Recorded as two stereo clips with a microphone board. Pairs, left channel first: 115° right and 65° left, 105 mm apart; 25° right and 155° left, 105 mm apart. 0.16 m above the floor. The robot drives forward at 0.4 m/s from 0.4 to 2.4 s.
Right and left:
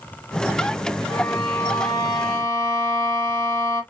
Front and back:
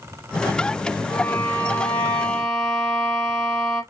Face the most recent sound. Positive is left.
turn(degrees=-105)